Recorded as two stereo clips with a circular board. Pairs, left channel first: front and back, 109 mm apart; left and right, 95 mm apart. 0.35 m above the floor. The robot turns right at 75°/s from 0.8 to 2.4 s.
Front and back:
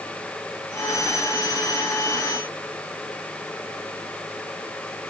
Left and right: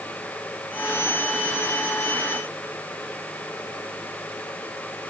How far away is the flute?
No flute in this recording.